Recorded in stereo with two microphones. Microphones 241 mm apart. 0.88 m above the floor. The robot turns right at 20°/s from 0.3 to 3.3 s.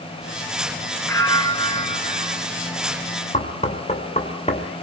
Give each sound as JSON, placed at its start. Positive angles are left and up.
{"t": 1.1, "sound": "a bell", "side_deg": 10, "distance_m": 5.0}
{"t": 3.3, "sound": "knocking", "side_deg": 30, "distance_m": 2.5}